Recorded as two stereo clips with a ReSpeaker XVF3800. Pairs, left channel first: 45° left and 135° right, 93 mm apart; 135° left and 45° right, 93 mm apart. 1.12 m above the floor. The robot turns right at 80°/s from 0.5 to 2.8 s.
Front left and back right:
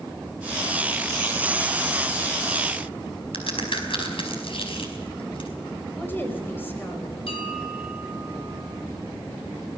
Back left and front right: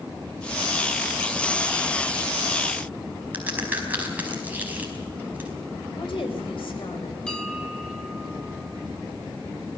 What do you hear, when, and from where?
3.3 s a crack: 30° left, 4.5 m
6.0 s a woman speaking: 115° left, 4.5 m
7.3 s a bell: 55° left, 3.5 m